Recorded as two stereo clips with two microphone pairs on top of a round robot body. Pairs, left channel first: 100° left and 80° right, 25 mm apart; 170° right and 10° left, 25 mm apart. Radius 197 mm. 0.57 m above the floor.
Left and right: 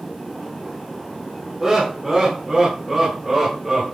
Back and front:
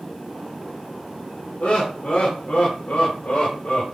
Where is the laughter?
155° right, 3 m; by 3.9 s 160° right, 4 m.